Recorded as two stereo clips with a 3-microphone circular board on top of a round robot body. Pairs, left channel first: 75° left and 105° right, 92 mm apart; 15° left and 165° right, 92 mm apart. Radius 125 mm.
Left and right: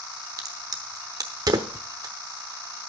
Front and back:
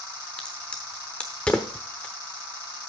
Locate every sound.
0.4 s a crack: 65° right, 0.9 m